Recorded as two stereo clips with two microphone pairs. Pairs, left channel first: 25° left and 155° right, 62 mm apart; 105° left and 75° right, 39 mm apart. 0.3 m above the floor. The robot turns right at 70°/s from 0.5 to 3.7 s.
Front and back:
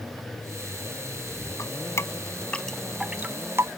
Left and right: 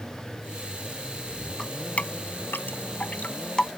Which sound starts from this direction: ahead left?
Dripping, at 1.6 s.